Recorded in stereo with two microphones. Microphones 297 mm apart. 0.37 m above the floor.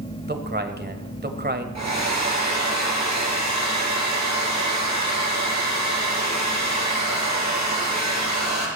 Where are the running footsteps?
No running footsteps in this recording.